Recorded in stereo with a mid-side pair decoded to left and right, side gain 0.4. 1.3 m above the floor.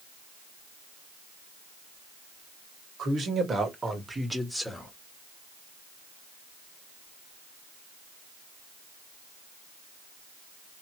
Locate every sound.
3.0 s a man speaking: 65° right, 2 m; by 4.9 s 10° left, 1.9 m